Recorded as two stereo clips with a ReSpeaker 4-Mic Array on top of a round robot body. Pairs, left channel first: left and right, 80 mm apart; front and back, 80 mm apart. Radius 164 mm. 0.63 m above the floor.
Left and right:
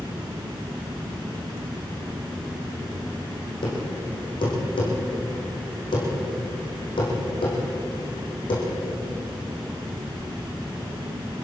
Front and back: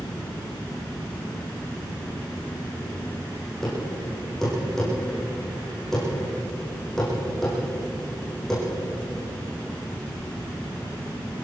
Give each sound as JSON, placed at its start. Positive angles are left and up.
{"t": 3.6, "sound": "a thud", "azimuth_deg": 85, "distance_m": 9.5}